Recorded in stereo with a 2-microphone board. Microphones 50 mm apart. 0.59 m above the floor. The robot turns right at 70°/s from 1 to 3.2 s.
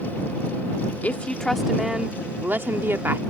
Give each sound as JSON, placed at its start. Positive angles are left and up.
{"t": 1.0, "sound": "a woman speaking", "azimuth_deg": 135}